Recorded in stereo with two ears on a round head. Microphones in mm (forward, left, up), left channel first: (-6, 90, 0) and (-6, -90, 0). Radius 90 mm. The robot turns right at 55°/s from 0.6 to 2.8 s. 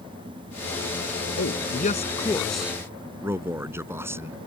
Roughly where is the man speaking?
Behind left.